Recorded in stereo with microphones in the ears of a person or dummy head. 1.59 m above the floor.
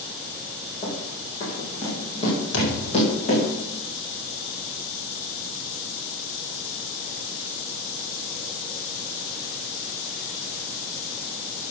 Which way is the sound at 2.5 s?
75° left (ahead or behind).